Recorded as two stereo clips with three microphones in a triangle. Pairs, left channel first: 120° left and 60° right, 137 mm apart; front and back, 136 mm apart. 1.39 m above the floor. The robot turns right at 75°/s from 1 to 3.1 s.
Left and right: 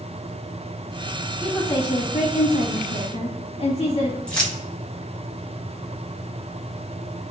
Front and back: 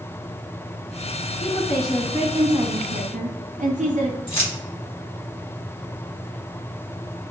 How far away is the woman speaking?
About 0.8 m.